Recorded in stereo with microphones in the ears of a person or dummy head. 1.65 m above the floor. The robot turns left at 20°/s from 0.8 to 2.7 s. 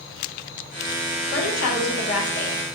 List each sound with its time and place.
1.3 s a woman speaking: 55° left (ahead or behind), 0.9 m; by 2.6 s 80° left, 0.9 m